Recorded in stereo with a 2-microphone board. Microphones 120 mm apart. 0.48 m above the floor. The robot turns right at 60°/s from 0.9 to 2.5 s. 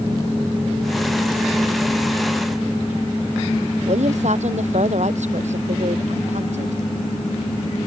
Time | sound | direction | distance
3.9 | a woman speaking | 70° right (ahead or behind) | ?